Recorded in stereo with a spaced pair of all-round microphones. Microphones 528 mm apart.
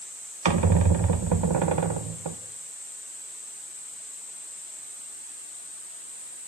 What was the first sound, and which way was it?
A squeak, 55° right (ahead or behind).